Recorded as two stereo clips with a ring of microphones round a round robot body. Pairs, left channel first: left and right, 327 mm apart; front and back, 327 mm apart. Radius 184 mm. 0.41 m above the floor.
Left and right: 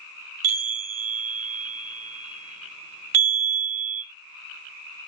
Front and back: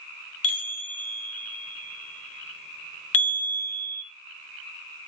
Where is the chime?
45° right, 1.6 m.